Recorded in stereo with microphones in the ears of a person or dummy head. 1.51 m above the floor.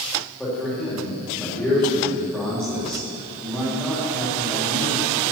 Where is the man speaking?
Centre (ahead or behind), 3 m.